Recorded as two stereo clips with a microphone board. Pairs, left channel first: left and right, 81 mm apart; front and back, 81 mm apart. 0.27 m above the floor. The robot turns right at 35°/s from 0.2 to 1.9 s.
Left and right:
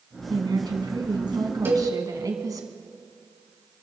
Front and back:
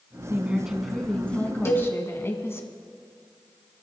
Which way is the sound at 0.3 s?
110° right.